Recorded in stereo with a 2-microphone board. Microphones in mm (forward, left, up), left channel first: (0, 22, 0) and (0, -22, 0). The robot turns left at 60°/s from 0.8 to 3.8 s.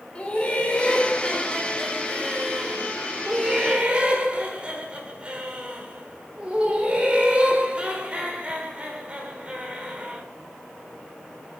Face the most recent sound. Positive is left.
turn(degrees=-25)  # may be behind; listen again after turning